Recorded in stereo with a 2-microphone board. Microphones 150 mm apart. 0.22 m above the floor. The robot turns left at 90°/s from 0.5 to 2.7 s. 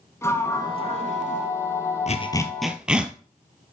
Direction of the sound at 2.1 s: 50° left (ahead or behind).